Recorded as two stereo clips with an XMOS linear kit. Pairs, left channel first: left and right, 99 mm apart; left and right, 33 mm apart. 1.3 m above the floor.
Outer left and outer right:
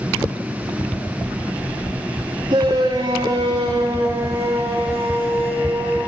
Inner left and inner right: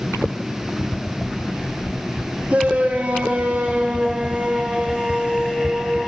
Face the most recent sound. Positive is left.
turn(degrees=-15)  # may be behind; listen again after turning